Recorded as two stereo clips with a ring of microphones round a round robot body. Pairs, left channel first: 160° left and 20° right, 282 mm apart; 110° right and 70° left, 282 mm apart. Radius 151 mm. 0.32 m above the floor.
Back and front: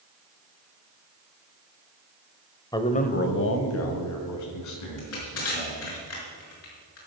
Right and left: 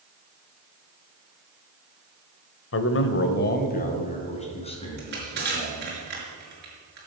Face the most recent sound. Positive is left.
turn(degrees=120)